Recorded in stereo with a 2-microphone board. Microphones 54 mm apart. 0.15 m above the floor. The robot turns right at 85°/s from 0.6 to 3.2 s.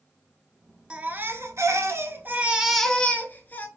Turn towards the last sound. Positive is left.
turn(degrees=40)